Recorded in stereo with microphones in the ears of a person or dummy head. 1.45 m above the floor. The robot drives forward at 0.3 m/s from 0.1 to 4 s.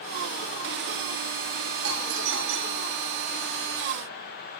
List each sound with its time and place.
1.8 s a doorbell: 75° right (ahead or behind), 3.5 m; by 2.9 s 70° right (ahead or behind), 4 m